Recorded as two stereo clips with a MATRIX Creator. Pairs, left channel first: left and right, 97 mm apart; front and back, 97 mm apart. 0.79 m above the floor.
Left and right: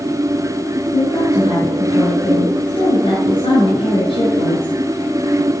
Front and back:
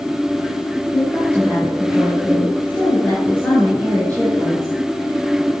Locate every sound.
0.9 s a woman speaking: 70° left, 5.5 m